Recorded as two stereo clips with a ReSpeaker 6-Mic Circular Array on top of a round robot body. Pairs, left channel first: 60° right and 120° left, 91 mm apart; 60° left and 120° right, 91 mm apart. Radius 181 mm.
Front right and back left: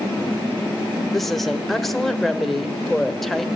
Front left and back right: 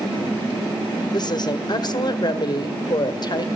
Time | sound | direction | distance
1.1 | a woman speaking | 25° left | 1.6 m